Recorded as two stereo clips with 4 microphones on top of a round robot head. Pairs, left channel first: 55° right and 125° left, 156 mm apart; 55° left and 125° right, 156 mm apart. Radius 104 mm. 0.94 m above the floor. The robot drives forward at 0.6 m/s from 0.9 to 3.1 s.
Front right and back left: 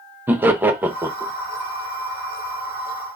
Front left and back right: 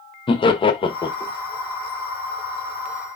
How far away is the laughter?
About 0.8 m.